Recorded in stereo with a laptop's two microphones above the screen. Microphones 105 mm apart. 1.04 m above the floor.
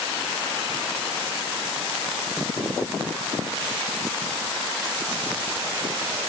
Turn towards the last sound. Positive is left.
No sound to turn to.